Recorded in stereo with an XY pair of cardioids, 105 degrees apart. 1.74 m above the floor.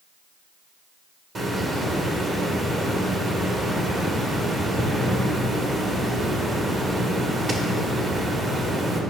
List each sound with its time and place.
1.4 s a hiss: 45° right, 1.7 m